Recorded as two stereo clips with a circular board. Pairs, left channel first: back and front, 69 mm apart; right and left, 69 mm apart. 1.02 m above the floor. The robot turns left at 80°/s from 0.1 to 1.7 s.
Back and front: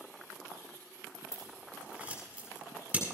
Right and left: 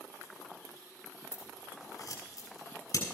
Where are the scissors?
30° right, 7 m; by 3.0 s 65° right, 7 m.